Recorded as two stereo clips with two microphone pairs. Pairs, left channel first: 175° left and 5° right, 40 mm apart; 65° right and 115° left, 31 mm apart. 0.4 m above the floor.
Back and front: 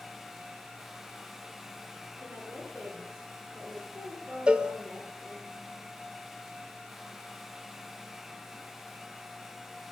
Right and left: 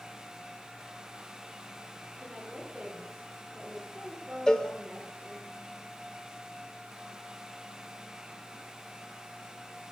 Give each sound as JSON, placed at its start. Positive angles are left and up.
{"t": 2.2, "sound": "a woman speaking", "azimuth_deg": 30, "distance_m": 6.0}
{"t": 4.5, "sound": "a cowbell", "azimuth_deg": -25, "distance_m": 0.9}